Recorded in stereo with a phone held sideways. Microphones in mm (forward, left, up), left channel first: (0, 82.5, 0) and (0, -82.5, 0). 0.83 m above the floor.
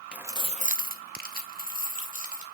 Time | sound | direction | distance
0.1 | keys jangling | 5° right (ahead or behind) | 0.7 m